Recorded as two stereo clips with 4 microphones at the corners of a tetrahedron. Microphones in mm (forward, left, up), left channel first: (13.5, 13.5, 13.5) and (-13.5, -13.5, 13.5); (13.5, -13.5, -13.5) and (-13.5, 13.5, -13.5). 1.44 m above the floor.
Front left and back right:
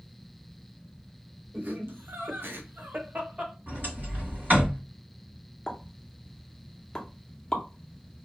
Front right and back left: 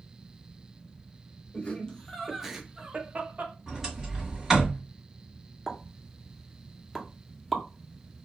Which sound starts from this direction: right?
Laughter, at 1.5 s.